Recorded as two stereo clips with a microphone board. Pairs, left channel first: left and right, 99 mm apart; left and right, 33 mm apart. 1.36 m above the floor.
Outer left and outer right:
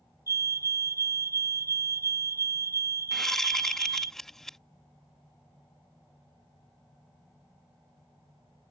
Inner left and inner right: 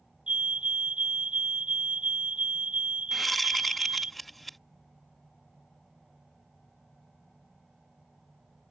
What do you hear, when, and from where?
0.3 s a fire alarm: 35° right (ahead or behind)
3.1 s a whoosh: 5° left (ahead or behind)